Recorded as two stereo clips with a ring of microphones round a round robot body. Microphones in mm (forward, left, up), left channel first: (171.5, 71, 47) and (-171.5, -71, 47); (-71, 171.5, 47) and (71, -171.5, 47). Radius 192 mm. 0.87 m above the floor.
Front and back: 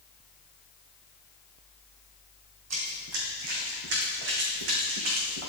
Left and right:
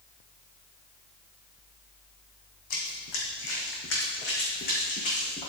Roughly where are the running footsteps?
Behind left.